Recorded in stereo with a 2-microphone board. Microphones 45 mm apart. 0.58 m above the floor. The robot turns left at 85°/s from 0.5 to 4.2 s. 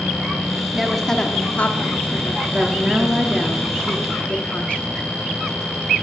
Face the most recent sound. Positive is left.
turn(degrees=105)